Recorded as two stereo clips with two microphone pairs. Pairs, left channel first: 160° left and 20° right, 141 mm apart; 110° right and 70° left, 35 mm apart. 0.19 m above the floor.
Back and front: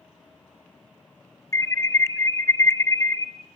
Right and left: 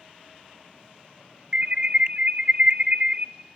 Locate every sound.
1.5 s an alarm: 105° left, 0.9 m